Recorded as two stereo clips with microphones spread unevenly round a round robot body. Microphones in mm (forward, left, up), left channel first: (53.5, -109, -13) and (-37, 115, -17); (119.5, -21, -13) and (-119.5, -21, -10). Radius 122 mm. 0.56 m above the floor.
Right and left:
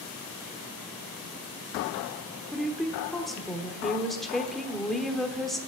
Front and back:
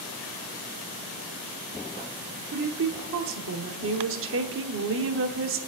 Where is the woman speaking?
160° right, 1.1 m.